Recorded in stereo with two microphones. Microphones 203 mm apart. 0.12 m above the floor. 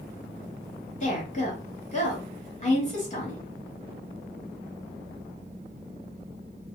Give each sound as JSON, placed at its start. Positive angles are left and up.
{"t": 1.0, "sound": "a woman speaking", "side_deg": 35, "distance_m": 2.0}